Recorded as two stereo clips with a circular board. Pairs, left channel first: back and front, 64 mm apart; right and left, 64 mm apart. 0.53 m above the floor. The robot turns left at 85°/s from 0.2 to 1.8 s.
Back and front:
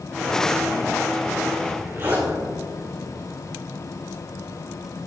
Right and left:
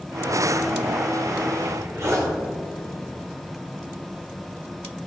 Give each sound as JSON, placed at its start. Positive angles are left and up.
{"t": 1.6, "sound": "a zipper", "azimuth_deg": 75, "distance_m": 3.5}